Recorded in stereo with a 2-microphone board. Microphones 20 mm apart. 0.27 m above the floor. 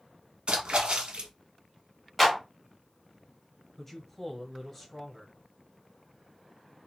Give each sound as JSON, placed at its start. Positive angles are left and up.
{"t": 0.5, "sound": "a splash", "side_deg": -70, "distance_m": 0.8}
{"t": 2.2, "sound": "a clap", "side_deg": -10, "distance_m": 1.7}
{"t": 3.8, "sound": "a man speaking", "side_deg": 10, "distance_m": 1.0}